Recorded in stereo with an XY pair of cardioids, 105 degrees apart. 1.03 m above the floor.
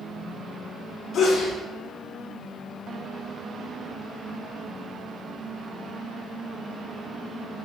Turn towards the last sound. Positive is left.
turn(degrees=65)